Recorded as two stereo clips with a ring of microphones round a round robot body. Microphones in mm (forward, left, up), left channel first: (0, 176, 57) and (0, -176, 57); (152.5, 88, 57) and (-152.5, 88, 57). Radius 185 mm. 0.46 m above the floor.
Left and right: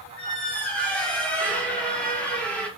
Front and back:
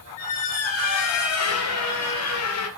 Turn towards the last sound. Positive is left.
turn(degrees=5)